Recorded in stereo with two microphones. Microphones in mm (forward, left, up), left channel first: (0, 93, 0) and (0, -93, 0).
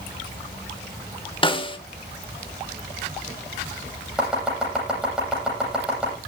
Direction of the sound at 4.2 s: 5° right (ahead or behind).